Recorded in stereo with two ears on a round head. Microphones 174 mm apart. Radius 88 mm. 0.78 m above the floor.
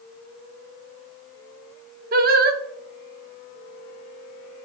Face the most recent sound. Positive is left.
turn(degrees=-45)  # may be behind; listen again after turning